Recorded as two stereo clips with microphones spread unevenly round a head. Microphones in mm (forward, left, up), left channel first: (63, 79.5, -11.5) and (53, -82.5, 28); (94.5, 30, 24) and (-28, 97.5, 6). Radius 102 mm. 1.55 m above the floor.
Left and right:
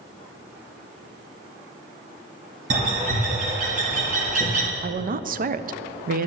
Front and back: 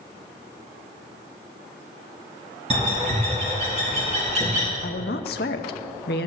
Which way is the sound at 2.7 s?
145° right.